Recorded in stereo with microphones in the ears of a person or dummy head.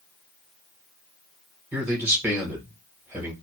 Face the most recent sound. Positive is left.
turn(degrees=-10)  # may be behind; listen again after turning